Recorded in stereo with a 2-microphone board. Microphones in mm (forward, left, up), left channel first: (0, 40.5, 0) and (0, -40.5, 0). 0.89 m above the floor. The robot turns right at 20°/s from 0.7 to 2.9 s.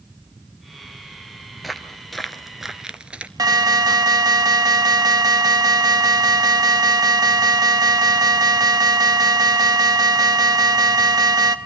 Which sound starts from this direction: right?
An alarm, at 3.4 s.